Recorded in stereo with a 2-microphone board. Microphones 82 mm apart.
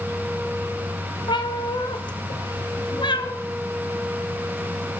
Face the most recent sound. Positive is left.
turn(degrees=70)  # may be behind; listen again after turning